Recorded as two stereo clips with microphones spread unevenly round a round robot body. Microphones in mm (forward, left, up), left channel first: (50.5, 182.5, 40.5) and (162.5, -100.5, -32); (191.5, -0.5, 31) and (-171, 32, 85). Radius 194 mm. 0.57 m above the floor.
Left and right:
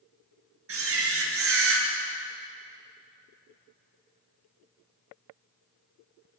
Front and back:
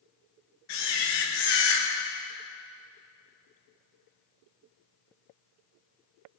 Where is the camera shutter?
25° right, 3.5 m.